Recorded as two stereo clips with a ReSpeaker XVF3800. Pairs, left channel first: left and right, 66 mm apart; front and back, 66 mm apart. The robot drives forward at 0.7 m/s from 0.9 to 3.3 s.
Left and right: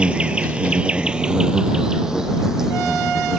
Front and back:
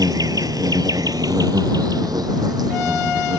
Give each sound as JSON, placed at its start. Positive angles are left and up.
{"t": 0.0, "sound": "an insect", "azimuth_deg": -160}